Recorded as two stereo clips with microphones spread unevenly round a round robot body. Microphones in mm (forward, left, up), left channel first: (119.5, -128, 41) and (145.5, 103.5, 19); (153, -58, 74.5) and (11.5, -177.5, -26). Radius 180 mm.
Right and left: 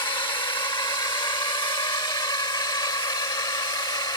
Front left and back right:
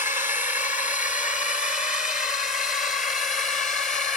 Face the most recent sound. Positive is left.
turn(degrees=-25)